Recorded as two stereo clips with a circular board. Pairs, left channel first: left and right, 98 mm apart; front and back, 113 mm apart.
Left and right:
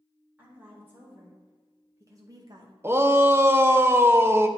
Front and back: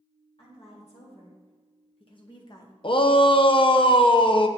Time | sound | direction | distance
0.4 | a woman speaking | 20° right | 3 m
2.8 | a shout | 30° right | 0.5 m